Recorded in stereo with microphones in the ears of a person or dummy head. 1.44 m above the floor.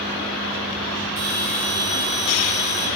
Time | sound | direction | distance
1.2 | a bell | 70° right (ahead or behind) | 3 m